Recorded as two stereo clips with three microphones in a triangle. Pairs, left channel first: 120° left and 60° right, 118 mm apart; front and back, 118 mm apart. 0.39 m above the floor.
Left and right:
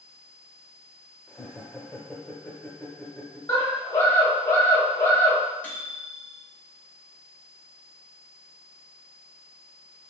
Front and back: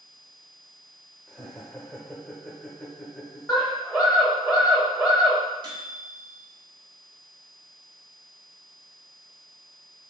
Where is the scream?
95° left, 1.5 m.